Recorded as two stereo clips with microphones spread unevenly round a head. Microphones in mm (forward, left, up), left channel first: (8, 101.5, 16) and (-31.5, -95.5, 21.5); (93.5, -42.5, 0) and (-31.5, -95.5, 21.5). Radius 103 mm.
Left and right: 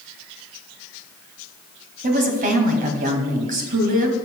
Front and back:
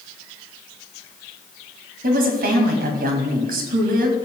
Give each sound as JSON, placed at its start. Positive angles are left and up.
{"t": 2.0, "sound": "a woman speaking", "azimuth_deg": -150, "distance_m": 2.0}